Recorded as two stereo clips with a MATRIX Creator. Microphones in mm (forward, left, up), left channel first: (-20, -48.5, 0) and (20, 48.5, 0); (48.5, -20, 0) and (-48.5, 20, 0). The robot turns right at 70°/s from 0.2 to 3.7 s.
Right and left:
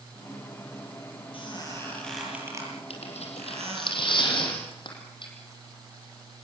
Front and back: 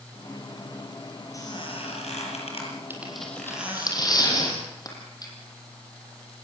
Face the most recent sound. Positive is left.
turn(degrees=-75)